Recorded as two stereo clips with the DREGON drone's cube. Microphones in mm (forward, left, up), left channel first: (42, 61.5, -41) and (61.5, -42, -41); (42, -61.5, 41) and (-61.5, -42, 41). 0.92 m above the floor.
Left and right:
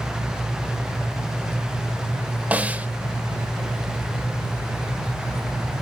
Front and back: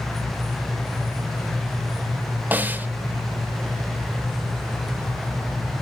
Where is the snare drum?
140° right, 0.7 m.